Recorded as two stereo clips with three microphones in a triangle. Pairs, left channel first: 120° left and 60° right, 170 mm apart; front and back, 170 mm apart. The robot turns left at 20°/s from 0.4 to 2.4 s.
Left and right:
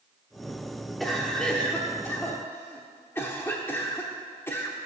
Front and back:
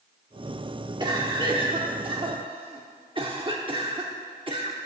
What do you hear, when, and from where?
1.0 s a cough: 150° right, 0.9 m; by 4.8 s straight behind, 0.9 m